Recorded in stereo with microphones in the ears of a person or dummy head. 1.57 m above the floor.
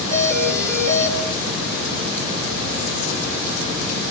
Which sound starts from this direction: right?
A doorbell, at 0.1 s.